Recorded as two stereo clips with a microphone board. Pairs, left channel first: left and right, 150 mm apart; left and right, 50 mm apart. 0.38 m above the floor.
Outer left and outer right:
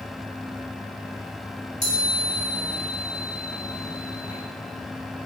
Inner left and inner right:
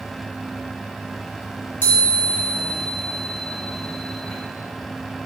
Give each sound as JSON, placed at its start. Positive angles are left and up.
{"t": 1.8, "sound": "a chime", "side_deg": 45, "distance_m": 1.5}